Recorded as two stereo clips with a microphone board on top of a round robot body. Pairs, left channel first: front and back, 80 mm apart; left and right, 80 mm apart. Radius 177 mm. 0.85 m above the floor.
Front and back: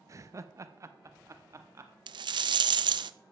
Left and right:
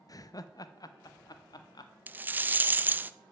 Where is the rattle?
160° right, 0.5 m.